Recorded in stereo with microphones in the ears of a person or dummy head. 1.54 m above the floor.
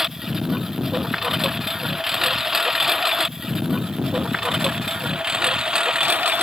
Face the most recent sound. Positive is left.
turn(degrees=-10)  # may be behind; listen again after turning